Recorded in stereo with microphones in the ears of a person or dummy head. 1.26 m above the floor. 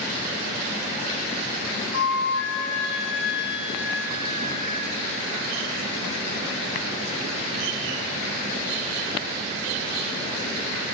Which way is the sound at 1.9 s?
70° left (ahead or behind).